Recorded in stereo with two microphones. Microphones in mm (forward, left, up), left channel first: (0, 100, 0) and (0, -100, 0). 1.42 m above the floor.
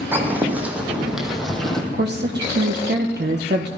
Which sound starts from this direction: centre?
Footsteps, at 0.1 s.